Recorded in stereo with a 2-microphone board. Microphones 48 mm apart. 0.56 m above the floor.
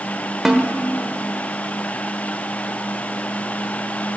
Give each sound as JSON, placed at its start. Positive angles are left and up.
{"t": 0.5, "sound": "a snare drum", "side_deg": -10, "distance_m": 1.2}